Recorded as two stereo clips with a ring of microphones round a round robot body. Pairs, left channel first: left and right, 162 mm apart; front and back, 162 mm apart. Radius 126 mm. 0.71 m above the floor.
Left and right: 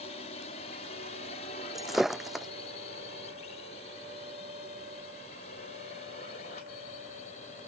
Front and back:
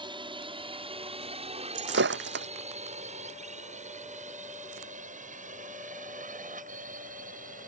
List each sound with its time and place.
0.0 s a drone: 130° left; by 7.7 s 145° left
1.8 s breaking glass: straight behind